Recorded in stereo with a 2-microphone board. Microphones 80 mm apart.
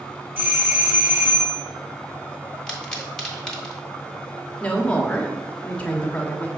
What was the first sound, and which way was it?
A doorbell, 25° right (ahead or behind).